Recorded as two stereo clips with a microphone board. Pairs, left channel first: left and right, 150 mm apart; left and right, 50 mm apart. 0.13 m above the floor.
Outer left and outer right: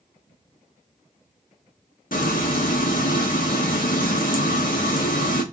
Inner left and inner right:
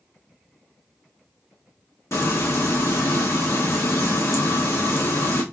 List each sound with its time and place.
2.1 s frying: 65° left (ahead or behind), 1.4 m